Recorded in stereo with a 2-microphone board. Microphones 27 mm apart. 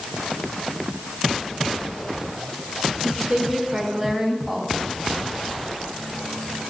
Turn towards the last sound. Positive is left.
turn(degrees=-10)  # may be behind; listen again after turning